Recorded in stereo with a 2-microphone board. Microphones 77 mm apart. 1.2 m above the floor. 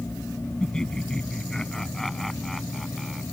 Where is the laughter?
10° left (ahead or behind); by 3.2 s centre (ahead or behind).